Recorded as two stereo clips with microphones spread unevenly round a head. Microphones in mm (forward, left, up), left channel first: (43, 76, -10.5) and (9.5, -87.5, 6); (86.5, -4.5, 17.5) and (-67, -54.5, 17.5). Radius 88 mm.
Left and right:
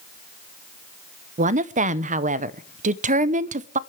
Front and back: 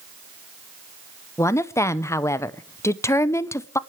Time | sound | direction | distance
1.4 | a woman speaking | 55° right | 0.8 m